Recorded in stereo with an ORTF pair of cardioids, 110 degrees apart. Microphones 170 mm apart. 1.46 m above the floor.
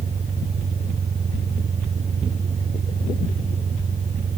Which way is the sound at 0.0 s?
40° right.